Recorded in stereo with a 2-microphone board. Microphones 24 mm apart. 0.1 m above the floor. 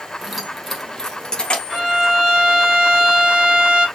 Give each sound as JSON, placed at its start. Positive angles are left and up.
{"t": 0.2, "sound": "keys jangling", "side_deg": -20, "distance_m": 1.2}
{"t": 1.7, "sound": "a violin", "side_deg": -40, "distance_m": 2.5}